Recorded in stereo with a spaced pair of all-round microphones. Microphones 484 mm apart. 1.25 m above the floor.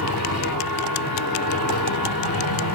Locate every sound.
0.0 s a machine running: 45° left (ahead or behind), 1.8 m